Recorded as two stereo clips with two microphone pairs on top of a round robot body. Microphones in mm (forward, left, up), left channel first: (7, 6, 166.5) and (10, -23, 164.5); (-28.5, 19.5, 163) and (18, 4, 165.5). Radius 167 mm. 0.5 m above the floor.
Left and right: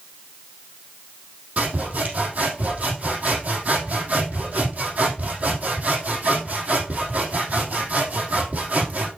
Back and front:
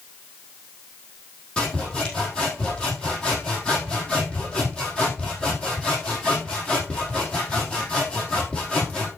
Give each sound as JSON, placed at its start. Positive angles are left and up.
{"t": 1.6, "sound": "sawing", "azimuth_deg": -125, "distance_m": 4.0}